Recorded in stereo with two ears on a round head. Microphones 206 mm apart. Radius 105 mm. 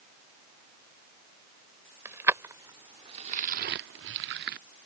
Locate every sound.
2.0 s keys jangling: 10° right (ahead or behind); by 4.6 s 40° right (ahead or behind)